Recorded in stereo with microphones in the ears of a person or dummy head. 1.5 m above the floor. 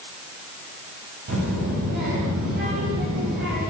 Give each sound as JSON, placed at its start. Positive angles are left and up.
{"t": 1.3, "sound": "a child speaking", "side_deg": -60, "distance_m": 7.0}